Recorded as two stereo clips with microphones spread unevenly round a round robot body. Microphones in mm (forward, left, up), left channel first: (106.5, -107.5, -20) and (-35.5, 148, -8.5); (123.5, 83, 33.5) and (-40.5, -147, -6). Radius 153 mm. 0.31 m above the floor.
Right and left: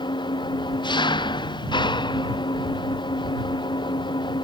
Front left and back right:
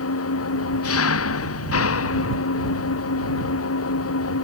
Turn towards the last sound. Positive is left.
turn(degrees=15)